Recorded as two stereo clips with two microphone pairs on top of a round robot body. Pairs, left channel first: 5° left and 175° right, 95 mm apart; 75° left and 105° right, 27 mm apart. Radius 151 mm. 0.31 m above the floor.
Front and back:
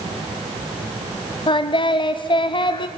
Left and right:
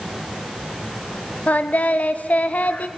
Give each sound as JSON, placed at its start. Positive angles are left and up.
{"t": 1.5, "sound": "singing", "azimuth_deg": 45, "distance_m": 0.7}